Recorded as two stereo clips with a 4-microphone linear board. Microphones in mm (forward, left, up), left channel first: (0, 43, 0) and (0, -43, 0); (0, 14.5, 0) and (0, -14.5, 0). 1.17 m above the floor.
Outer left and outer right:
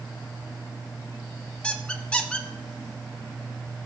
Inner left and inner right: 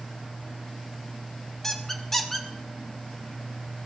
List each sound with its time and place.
1.6 s a squeak: 15° left (ahead or behind), 0.8 m